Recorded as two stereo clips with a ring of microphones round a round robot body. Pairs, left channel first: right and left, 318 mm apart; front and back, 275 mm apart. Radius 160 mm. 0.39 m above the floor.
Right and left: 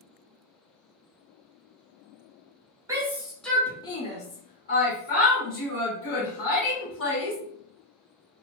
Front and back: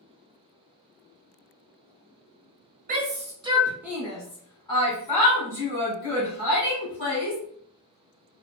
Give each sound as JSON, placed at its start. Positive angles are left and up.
{"t": 2.9, "sound": "a shout", "azimuth_deg": 160, "distance_m": 1.0}